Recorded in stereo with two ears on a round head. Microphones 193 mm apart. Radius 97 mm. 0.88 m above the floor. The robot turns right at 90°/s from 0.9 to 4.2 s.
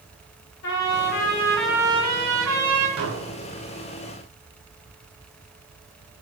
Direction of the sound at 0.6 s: 110° left.